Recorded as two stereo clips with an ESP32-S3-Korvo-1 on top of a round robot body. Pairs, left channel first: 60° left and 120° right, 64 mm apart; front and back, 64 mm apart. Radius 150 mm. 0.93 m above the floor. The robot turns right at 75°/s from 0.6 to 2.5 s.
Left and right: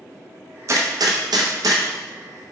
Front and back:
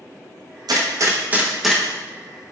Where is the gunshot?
165° right, 0.9 m; by 1.8 s 75° right, 0.9 m.